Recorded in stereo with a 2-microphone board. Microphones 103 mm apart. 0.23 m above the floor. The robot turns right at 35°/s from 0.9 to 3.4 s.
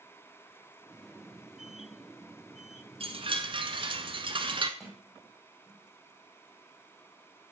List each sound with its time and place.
3.0 s a chime: 65° right (ahead or behind), 1.0 m; by 4.7 s 55° right (ahead or behind), 1.0 m
4.8 s a sliding door: centre (ahead or behind), 5 m